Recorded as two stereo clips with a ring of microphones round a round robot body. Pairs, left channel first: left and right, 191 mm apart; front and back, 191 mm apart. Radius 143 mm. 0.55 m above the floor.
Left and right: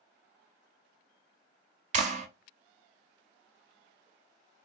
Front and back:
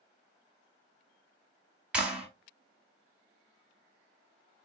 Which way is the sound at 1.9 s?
100° right.